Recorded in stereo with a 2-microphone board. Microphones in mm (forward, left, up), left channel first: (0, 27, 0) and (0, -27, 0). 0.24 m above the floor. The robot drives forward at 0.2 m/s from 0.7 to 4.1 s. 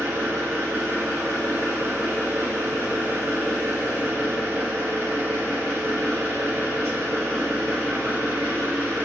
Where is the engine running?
60° right (ahead or behind), 1.9 m; by 9.0 s 50° right (ahead or behind), 2 m.